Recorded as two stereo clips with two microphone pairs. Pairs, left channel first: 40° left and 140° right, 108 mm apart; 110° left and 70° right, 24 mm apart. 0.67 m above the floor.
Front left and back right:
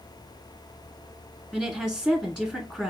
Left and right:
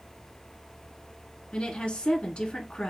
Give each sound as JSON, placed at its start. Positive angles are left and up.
{"t": 1.5, "sound": "a woman speaking", "azimuth_deg": 120, "distance_m": 1.5}